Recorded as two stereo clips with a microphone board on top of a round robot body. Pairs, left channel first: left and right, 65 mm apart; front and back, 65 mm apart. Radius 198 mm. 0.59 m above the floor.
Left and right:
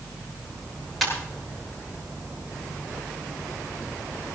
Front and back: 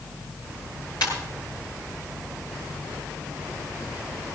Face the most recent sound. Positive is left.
turn(degrees=5)